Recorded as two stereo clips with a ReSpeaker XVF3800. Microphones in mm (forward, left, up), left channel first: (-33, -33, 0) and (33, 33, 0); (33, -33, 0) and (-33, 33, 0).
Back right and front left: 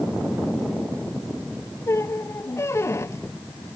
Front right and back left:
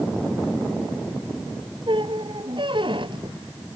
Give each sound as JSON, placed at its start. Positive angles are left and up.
{"t": 1.9, "sound": "a squeak", "azimuth_deg": 165}